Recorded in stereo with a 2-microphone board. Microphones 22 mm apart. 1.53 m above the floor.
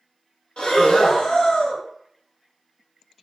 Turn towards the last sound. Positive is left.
turn(degrees=50)  # may be behind; listen again after turning